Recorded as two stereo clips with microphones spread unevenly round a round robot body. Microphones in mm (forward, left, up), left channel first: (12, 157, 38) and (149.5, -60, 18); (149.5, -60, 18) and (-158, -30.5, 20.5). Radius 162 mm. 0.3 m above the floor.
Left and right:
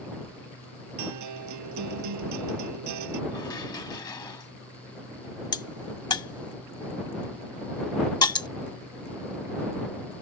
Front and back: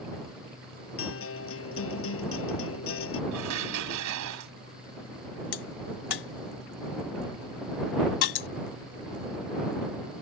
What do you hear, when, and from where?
1.0 s a guitar: 55° right
3.3 s dishes clattering: 160° right
5.5 s a crack: 45° left